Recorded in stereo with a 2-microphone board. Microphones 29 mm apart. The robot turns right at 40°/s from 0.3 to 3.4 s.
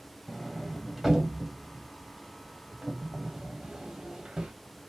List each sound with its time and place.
0.3 s a sliding door: 5° left (ahead or behind), 1.3 m; by 4.5 s 30° right (ahead or behind), 1.3 m